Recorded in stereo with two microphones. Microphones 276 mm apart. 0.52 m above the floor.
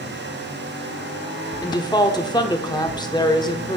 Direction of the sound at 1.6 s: 15° left (ahead or behind).